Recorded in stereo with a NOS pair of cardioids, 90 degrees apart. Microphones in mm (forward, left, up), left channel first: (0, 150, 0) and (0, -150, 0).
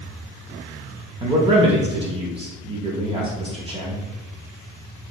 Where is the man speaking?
20° right, 0.6 m.